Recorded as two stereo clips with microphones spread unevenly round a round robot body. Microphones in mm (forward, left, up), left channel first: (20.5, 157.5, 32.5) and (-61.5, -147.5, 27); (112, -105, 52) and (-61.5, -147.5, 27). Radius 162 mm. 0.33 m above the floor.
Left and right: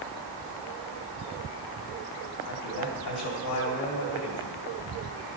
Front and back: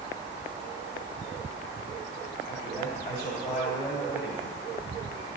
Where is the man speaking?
70° left, 2.5 m.